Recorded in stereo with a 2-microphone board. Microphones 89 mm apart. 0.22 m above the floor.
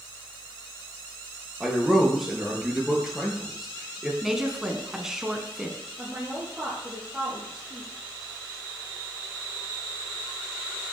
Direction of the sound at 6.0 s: 5° right (ahead or behind).